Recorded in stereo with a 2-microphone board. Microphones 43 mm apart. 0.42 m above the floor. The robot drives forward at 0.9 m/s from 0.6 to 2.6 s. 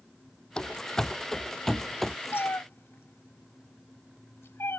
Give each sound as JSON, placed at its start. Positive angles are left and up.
{"t": 0.6, "sound": "running footsteps", "side_deg": 20}
{"t": 2.3, "sound": "a cat meowing", "side_deg": 65}